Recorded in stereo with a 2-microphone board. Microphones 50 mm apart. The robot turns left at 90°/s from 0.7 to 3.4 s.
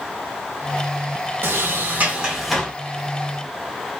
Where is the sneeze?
No sneeze in this recording.